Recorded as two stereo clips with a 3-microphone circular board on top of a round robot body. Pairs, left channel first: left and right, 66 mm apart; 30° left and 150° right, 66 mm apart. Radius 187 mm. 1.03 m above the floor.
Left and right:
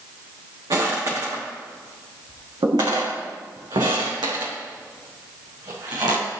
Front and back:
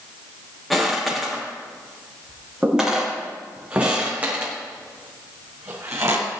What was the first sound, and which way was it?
Footsteps, 60° right.